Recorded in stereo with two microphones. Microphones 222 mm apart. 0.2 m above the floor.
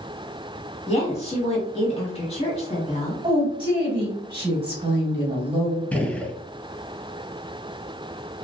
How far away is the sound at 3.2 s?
About 1.2 m.